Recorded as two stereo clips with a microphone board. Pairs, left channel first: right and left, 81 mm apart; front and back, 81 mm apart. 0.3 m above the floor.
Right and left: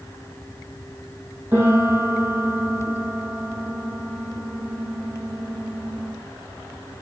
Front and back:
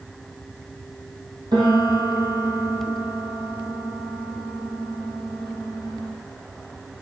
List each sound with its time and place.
1.5 s a piano: 155° left, 3 m